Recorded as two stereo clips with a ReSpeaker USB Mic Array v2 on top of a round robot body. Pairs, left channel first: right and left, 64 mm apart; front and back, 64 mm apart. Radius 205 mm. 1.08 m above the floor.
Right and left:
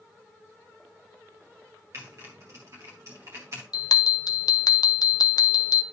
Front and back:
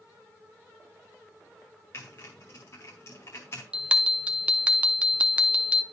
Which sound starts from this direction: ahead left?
Typing on a keyboard, at 1.9 s.